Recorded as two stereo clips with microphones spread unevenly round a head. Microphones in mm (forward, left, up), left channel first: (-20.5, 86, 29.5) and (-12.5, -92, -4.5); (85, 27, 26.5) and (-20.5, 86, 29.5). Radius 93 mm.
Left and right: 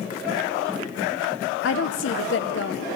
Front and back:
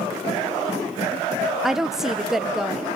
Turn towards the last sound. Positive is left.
turn(degrees=65)